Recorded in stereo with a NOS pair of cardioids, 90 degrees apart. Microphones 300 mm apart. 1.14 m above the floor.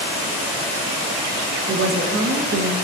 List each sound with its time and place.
1.7 s a woman speaking: 45° right, 1.1 m